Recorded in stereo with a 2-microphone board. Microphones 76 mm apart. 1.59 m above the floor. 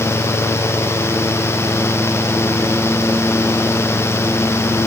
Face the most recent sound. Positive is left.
No sound to turn to.